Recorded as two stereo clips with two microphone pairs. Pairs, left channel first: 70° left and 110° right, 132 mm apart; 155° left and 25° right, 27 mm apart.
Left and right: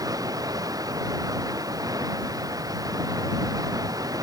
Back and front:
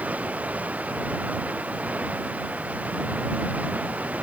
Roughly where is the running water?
Ahead right.